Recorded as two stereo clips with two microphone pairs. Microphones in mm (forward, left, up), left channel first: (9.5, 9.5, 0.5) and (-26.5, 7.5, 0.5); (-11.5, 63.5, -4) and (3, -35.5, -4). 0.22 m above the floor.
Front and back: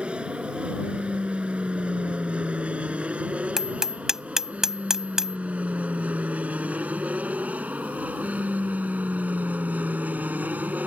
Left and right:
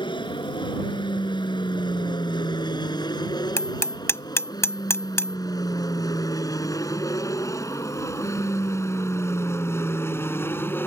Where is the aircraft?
125° left; by 10.9 s 160° left.